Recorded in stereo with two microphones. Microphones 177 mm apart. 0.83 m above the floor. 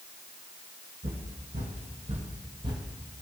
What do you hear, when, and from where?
1.0 s footsteps: 55° right (ahead or behind), 2 m; by 2.9 s 20° right (ahead or behind), 1.1 m